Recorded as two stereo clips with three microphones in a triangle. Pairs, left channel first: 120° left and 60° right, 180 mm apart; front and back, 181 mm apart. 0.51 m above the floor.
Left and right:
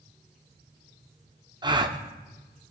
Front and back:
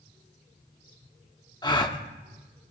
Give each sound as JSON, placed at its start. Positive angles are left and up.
{"t": 1.6, "sound": "a gasp", "azimuth_deg": -30, "distance_m": 0.5}